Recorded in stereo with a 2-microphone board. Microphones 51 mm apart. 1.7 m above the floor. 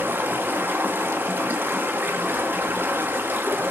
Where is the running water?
35° right (ahead or behind), 1.0 m.